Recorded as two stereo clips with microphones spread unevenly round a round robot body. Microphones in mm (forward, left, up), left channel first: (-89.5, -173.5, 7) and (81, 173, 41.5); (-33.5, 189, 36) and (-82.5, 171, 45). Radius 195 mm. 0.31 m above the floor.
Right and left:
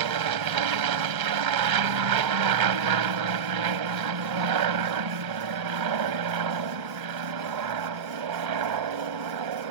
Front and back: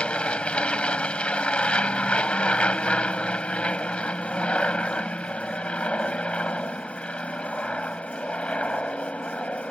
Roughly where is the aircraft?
Left.